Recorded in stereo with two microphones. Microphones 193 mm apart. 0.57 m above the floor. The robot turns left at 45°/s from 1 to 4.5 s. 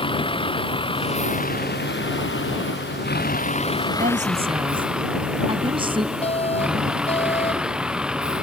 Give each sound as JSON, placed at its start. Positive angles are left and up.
{"t": 0.0, "sound": "a vehicle", "azimuth_deg": 155}
{"t": 4.0, "sound": "a woman speaking", "side_deg": -50}
{"t": 6.2, "sound": "an alarm", "side_deg": 30}